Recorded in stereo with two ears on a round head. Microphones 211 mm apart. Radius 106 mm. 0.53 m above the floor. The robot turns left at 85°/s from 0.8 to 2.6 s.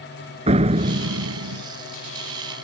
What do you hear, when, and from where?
0.5 s a door slam: 25° right; by 1.6 s 95° right